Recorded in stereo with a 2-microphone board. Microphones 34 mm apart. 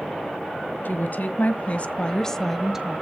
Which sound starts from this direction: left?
A woman speaking, at 0.8 s.